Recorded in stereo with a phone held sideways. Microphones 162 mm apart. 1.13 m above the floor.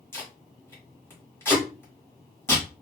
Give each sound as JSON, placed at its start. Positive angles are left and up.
{"t": 0.1, "sound": "tape being pulled", "side_deg": 15, "distance_m": 1.5}